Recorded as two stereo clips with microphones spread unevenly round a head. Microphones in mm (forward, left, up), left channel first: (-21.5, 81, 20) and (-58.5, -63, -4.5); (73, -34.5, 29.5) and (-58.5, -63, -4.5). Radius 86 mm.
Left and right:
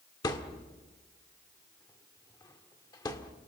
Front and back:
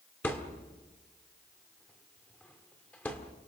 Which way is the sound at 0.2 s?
55° left.